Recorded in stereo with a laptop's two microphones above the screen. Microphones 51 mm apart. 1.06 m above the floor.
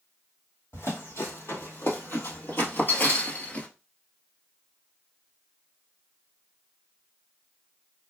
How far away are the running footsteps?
About 2.5 m.